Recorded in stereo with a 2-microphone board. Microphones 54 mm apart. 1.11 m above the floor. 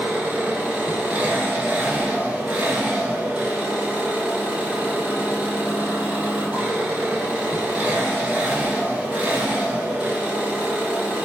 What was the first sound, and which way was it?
An engine running, 25° right (ahead or behind).